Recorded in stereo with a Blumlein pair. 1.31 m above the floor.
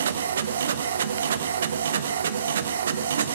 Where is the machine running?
65° right, 0.7 m.